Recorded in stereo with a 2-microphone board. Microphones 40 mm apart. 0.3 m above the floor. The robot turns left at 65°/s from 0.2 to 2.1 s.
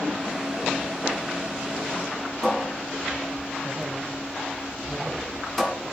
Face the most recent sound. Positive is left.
turn(degrees=5)  # may be behind; listen again after turning